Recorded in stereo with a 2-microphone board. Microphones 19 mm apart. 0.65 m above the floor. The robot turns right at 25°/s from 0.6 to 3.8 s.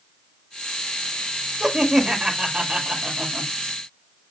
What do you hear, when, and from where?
1.6 s laughter: 145° right, 1.6 m; by 3.5 s 95° right, 1.6 m